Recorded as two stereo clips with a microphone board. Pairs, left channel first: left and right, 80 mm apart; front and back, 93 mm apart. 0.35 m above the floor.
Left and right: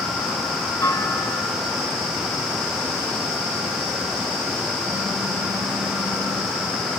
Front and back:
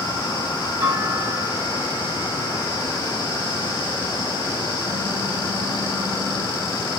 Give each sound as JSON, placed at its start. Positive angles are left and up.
{"t": 0.8, "sound": "a clunk", "azimuth_deg": 140, "distance_m": 3.0}
{"t": 2.6, "sound": "a phone buzzing", "azimuth_deg": -135, "distance_m": 4.5}